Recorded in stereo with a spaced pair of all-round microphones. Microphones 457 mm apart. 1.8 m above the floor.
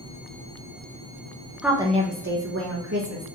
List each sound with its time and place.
1.6 s a woman speaking: centre (ahead or behind), 0.6 m; by 3.2 s 35° right (ahead or behind), 1.2 m